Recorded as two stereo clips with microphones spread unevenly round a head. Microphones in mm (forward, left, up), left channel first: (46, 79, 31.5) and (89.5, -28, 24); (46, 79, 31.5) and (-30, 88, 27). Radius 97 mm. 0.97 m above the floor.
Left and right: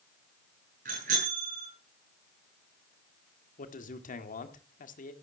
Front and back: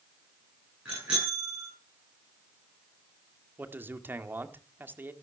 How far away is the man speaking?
About 2.0 m.